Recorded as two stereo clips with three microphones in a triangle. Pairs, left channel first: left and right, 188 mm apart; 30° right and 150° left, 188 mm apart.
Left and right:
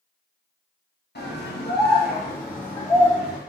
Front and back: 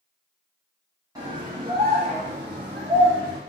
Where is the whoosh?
No whoosh in this recording.